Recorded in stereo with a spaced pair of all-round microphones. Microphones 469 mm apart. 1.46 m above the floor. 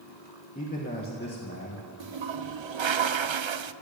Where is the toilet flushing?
75° right (ahead or behind), 0.5 m.